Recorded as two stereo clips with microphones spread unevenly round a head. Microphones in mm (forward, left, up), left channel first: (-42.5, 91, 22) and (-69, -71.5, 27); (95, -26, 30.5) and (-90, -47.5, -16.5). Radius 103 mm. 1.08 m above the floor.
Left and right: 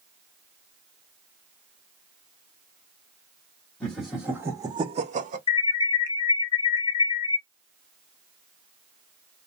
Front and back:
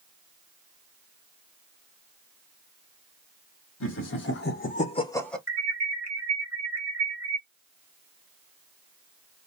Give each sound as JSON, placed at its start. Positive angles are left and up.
{"t": 3.8, "sound": "laughter", "azimuth_deg": -5, "distance_m": 1.6}
{"t": 5.5, "sound": "an alarm", "azimuth_deg": 120, "distance_m": 1.2}